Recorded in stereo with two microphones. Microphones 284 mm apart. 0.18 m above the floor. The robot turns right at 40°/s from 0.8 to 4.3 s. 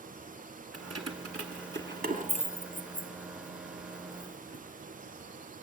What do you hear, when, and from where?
0.7 s keys jangling: 55° right (ahead or behind), 1.3 m; by 4.6 s 40° left (ahead or behind), 1.3 m